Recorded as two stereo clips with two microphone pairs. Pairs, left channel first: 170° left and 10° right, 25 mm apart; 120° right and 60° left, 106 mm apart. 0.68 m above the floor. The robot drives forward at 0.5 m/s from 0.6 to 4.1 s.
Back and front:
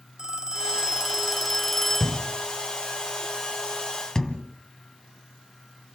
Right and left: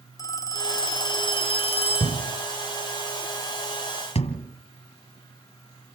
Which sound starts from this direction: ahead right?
A phone ringing, at 0.2 s.